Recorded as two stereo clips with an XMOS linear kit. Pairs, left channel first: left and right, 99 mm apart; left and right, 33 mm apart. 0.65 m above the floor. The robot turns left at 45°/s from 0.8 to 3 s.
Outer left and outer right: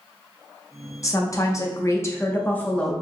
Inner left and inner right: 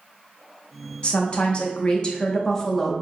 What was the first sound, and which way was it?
A woman speaking, 100° left.